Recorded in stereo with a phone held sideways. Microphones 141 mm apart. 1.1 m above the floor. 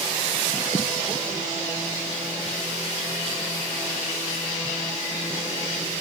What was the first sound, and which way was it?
Only background noise.